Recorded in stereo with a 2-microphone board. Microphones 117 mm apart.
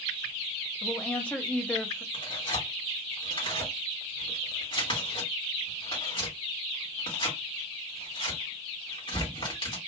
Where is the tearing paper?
50° left (ahead or behind), 1.9 m.